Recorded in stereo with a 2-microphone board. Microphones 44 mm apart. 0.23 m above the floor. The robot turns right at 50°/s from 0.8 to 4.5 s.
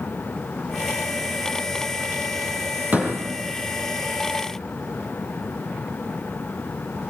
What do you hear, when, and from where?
2.9 s a door slam: 40° right (ahead or behind), 5.5 m; by 3.2 s 25° right (ahead or behind), 5.5 m